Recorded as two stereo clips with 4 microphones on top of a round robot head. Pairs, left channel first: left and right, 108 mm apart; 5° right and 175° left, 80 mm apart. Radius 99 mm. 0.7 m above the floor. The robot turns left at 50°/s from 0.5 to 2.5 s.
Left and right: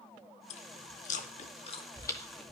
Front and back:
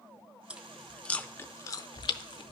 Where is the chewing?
100° left, 0.5 m; by 2.5 s straight ahead, 0.5 m.